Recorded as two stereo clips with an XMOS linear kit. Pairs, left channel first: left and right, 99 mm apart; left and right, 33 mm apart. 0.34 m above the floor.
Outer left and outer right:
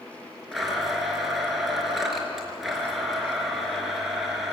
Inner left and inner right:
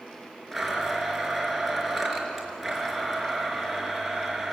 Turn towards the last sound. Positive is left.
turn(degrees=0)  # may be behind; listen again after turning